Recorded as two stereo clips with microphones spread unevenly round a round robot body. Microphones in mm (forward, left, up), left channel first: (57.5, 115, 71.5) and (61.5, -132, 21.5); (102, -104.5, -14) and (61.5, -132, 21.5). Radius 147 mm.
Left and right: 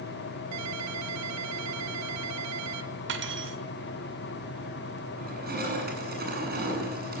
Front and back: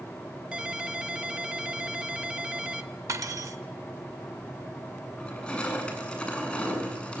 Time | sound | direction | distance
0.5 | a ringtone | 75° right | 2.5 m
3.1 | cutlery clinking | 140° right | 2 m
5.2 | crushing | 35° right | 8.5 m